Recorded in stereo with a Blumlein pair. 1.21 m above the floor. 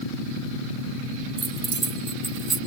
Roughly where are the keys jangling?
Ahead.